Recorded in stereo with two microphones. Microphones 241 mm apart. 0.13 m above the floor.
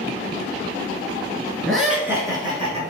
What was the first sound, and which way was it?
Laughter, centre (ahead or behind).